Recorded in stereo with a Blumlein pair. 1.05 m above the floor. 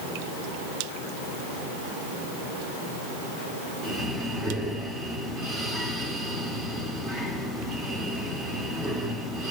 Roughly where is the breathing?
Ahead.